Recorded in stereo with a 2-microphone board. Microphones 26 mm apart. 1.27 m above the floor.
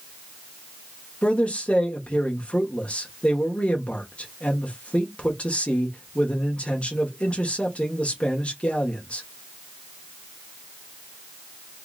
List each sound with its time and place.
1.2 s a man speaking: 50° left (ahead or behind), 1.3 m